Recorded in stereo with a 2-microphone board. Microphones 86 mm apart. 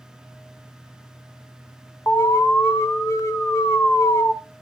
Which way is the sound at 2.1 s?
35° left (ahead or behind).